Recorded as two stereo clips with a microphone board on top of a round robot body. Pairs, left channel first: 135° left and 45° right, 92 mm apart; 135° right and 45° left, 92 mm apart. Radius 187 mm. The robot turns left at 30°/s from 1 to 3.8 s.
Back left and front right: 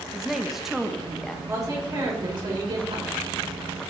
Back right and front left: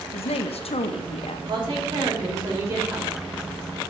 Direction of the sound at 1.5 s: 15° left.